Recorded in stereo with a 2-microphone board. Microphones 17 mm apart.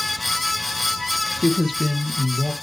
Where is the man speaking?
Centre (ahead or behind), 2.5 m.